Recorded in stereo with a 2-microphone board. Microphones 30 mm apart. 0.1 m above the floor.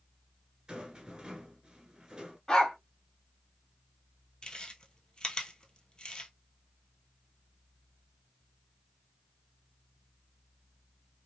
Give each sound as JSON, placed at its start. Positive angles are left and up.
{"t": 0.7, "sound": "a rattle", "side_deg": -25, "distance_m": 1.2}
{"t": 2.5, "sound": "a dog barking", "side_deg": 25, "distance_m": 1.7}
{"t": 4.4, "sound": "chewing", "side_deg": 30, "distance_m": 1.0}